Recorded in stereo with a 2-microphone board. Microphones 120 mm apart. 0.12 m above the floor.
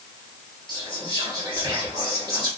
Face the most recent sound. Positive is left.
turn(degrees=-30)  # may be behind; listen again after turning